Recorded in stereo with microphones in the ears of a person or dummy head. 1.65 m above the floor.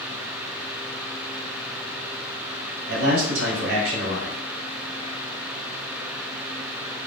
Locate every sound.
2.9 s a man speaking: 75° right (ahead or behind), 1.4 m